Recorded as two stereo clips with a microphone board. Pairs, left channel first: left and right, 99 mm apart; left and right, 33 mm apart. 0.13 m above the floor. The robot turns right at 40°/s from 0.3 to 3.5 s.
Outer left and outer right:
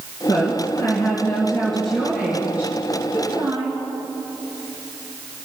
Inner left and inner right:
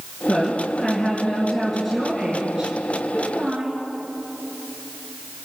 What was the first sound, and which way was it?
A woman speaking, 110° left.